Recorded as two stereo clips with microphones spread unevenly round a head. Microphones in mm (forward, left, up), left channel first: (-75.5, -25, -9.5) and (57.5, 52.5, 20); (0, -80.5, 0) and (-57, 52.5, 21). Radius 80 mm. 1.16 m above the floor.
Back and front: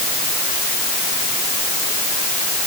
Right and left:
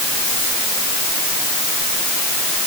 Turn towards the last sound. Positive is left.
No sound to turn to.